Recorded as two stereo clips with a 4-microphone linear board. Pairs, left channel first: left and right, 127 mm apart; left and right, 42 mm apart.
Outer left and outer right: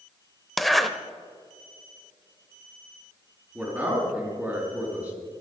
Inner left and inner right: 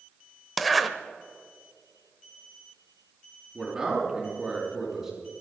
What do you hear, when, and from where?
0.6 s a zipper: centre (ahead or behind), 0.7 m
3.5 s a man speaking: 10° right (ahead or behind), 4.5 m